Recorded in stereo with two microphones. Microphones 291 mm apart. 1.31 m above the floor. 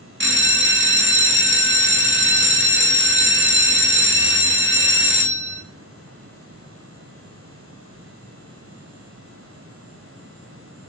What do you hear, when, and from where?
0.2 s a bell: 45° right (ahead or behind), 0.6 m